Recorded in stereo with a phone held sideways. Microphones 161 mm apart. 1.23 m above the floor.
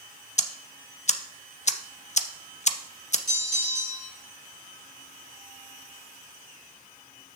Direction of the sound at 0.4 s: 45° left (ahead or behind).